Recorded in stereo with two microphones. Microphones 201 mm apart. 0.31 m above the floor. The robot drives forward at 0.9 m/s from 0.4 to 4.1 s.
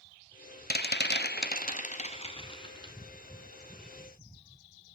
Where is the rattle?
55° left (ahead or behind), 0.9 m; by 2.9 s 20° left (ahead or behind), 1.9 m.